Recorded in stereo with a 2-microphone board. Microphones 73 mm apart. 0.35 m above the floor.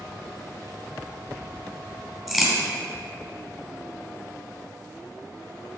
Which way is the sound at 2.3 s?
5° right (ahead or behind).